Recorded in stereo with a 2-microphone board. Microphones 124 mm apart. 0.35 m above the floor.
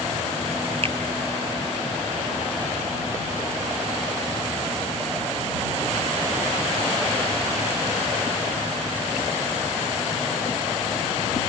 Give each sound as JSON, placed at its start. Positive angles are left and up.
{"t": 0.8, "sound": "a finger snap", "side_deg": -50}